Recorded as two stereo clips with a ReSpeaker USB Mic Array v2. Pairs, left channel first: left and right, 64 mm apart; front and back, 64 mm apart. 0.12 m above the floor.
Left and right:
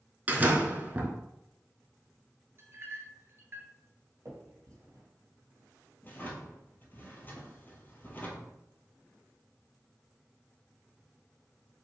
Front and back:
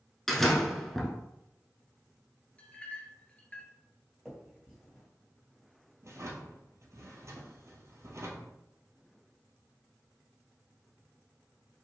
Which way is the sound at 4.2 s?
90° right.